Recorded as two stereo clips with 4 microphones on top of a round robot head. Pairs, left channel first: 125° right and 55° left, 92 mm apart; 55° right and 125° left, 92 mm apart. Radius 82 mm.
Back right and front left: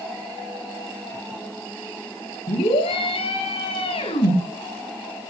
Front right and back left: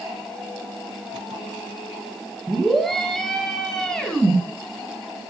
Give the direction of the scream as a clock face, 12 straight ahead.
5 o'clock.